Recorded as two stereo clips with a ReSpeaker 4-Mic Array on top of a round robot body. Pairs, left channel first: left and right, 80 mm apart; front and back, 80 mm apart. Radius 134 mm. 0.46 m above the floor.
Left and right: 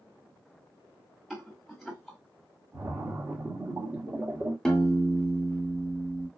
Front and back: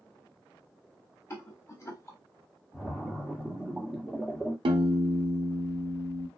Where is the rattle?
Straight ahead, 1.6 m.